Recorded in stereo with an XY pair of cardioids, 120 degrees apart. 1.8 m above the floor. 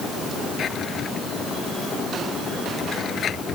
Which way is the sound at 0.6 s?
45° left.